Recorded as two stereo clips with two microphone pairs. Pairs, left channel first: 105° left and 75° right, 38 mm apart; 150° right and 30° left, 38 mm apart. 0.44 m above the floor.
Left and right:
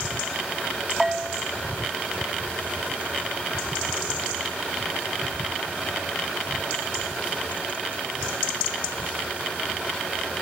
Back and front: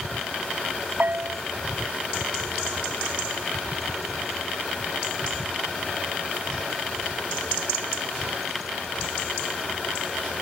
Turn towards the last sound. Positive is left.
turn(degrees=5)